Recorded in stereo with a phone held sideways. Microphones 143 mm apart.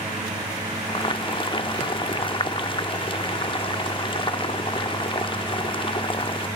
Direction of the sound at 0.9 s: 35° left (ahead or behind).